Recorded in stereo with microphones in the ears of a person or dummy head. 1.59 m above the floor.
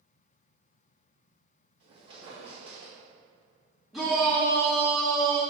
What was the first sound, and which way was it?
A squeak, 30° right (ahead or behind).